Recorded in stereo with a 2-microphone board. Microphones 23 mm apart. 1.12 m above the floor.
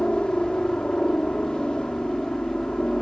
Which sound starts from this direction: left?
A helicopter, at 0.0 s.